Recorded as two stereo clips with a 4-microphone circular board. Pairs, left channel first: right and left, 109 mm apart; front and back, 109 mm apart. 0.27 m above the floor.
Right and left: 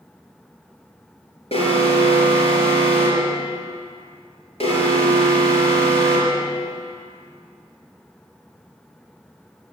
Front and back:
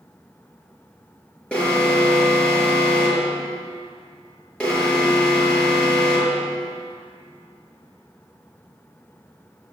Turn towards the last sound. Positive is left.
turn(degrees=-80)